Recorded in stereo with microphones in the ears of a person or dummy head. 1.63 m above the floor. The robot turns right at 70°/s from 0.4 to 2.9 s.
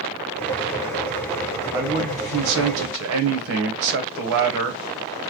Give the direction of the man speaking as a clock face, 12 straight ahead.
5 o'clock.